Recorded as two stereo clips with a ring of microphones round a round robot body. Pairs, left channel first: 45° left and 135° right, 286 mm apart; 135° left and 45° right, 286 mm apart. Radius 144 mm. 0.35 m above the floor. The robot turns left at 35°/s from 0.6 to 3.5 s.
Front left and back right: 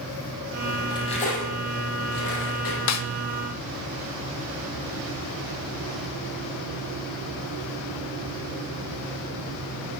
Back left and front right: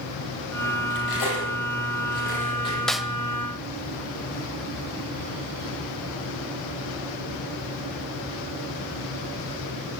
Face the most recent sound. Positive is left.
turn(degrees=25)